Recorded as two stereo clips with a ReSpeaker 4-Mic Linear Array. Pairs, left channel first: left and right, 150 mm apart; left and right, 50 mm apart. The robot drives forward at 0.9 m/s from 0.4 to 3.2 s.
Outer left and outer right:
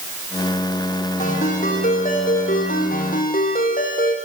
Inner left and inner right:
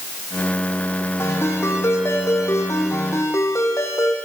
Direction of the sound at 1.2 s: 60° left (ahead or behind).